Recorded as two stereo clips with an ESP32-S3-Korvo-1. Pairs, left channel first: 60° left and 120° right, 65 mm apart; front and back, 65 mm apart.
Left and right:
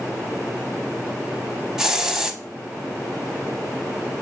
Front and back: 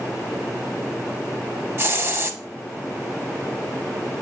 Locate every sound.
1.8 s a hiss: 160° left, 0.6 m